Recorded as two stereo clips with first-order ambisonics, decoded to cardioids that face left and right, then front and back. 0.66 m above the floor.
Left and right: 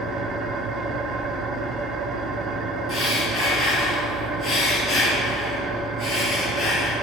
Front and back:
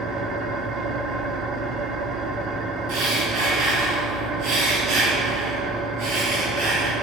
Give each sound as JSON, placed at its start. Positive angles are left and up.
{"t": 0.0, "sound": "an engine running", "azimuth_deg": -140, "distance_m": 1.6}
{"t": 2.9, "sound": "breathing", "azimuth_deg": 155, "distance_m": 6.0}